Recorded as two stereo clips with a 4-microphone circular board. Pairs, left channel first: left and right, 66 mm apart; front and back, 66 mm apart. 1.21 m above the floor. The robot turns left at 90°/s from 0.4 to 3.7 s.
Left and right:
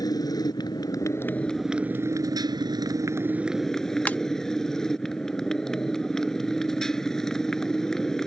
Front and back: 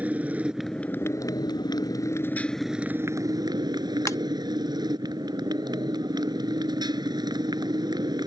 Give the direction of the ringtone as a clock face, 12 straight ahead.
11 o'clock.